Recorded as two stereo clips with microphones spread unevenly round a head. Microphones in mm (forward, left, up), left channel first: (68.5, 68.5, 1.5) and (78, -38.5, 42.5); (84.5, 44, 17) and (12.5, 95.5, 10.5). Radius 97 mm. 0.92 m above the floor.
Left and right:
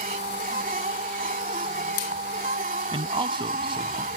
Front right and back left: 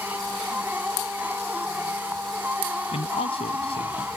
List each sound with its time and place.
0.0 s a machine running: 130° right
2.9 s a man speaking: 50° right